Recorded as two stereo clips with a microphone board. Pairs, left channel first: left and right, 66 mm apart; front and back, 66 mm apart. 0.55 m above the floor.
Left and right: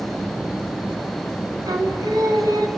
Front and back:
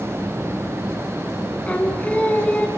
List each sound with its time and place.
1.7 s singing: 70° right, 3 m